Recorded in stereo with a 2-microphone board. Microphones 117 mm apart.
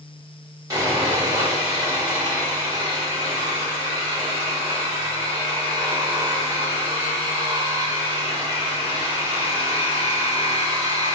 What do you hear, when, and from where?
0.7 s sawing: 30° right (ahead or behind), 1.4 m